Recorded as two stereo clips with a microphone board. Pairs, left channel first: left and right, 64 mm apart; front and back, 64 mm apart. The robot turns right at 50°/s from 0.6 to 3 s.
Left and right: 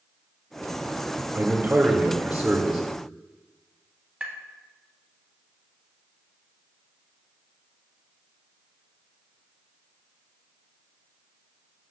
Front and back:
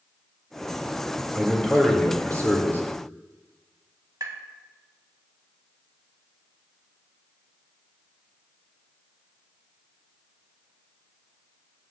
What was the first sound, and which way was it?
A man speaking, 70° right.